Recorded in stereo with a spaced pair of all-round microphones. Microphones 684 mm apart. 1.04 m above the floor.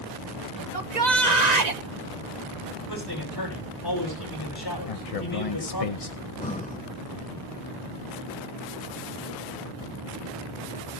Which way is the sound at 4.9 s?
55° left (ahead or behind).